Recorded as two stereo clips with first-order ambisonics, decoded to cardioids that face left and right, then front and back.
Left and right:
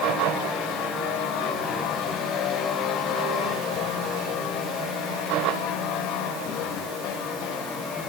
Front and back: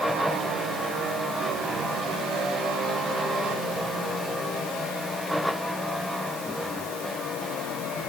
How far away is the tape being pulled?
I don't hear tape being pulled.